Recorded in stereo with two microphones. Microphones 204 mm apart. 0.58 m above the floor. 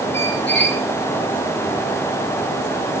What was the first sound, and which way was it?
A squeak, 70° left (ahead or behind).